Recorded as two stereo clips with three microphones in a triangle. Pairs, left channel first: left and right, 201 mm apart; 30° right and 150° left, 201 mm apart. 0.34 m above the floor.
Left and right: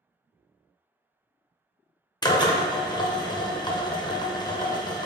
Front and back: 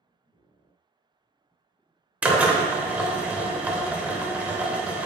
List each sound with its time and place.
2.2 s a drill: 80° left, 0.5 m